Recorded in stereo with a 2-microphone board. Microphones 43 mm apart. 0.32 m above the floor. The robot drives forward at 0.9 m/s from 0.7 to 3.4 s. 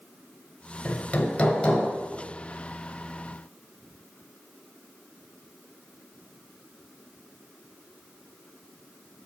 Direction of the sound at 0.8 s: 35° left (ahead or behind).